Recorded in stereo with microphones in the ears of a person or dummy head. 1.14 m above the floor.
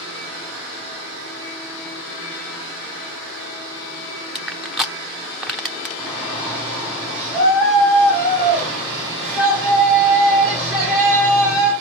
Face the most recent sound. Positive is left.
turn(degrees=20)  # may be behind; listen again after turning